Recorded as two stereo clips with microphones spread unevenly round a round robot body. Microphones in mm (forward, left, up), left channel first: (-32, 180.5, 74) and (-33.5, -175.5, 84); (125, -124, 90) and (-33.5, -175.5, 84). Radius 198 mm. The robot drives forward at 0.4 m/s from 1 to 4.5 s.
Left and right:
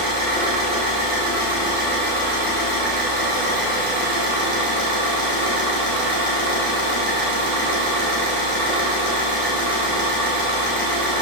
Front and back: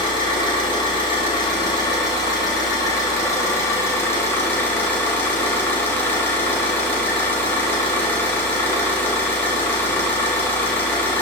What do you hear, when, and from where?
0.0 s an engine running: 45° right, 4.5 m; by 11.2 s 60° right, 3.5 m